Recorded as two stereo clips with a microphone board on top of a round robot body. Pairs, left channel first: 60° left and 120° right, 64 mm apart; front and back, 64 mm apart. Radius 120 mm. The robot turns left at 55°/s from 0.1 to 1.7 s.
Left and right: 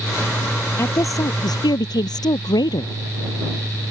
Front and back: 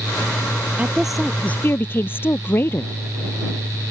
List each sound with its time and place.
0.8 s a woman speaking: 110° left; by 3.0 s 60° left